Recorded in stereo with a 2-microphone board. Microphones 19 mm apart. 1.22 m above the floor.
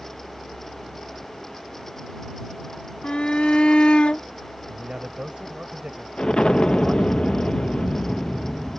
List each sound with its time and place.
3.0 s a shout: 85° left; by 4.2 s 80° left
4.7 s a man speaking: 55° right (ahead or behind)
6.2 s an explosion: 55° left (ahead or behind)